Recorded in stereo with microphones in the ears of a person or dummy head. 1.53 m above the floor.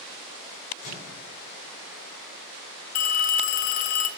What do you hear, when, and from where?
0.8 s a microwave: 60° left (ahead or behind), 5 m
3.0 s a phone ringing: 40° left (ahead or behind), 0.5 m